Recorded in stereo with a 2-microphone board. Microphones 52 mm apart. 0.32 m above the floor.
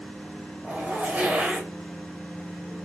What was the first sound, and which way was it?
A zipper, 35° right (ahead or behind).